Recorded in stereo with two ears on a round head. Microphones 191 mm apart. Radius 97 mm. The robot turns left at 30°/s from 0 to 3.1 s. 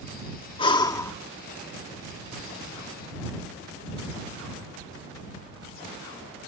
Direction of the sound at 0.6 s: 25° left (ahead or behind).